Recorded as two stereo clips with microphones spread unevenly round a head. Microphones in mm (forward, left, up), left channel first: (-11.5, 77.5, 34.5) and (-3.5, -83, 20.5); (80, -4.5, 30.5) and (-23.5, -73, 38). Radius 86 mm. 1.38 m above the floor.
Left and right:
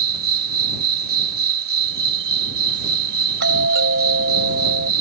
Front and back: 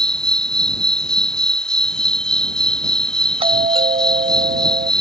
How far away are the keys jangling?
I don't hear keys jangling.